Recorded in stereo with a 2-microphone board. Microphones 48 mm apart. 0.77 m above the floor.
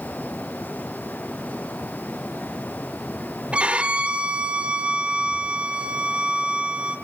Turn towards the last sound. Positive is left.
turn(degrees=-25)  # may be behind; listen again after turning